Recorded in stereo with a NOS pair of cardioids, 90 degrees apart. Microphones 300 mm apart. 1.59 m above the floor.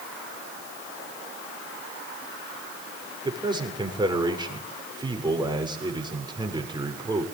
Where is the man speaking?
15° right, 7 m.